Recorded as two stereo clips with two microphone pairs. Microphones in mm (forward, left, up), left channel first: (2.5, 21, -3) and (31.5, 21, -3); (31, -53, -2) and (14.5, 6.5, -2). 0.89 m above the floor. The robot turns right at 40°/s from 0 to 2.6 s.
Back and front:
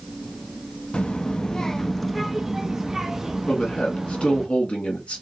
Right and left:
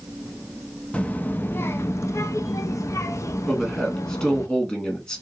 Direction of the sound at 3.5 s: 145° right.